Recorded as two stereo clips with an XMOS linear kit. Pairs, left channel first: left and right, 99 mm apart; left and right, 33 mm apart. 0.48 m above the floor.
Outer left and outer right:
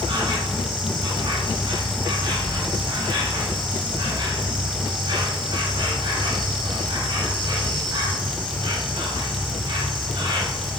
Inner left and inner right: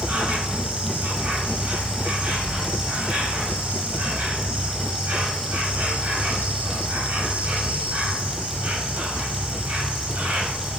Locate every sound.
0.0 s an insect: 50° right (ahead or behind), 1.1 m